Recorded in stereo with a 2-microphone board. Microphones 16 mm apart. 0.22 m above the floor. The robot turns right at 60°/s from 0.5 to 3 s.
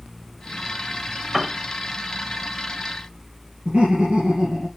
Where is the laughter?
75° right (ahead or behind), 4.5 m.